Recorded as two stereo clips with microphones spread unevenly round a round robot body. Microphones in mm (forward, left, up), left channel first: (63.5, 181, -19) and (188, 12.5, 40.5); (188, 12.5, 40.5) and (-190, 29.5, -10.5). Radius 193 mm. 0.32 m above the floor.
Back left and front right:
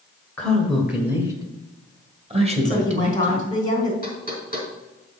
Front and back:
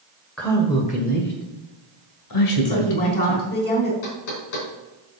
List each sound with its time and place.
0.4 s a man speaking: 100° left, 1.5 m; by 3.5 s 10° left, 2.5 m
2.6 s a woman speaking: 65° left, 3.5 m
4.0 s knocking: straight ahead, 4 m